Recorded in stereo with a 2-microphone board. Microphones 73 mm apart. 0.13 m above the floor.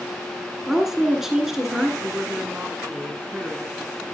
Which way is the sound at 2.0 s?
25° right (ahead or behind).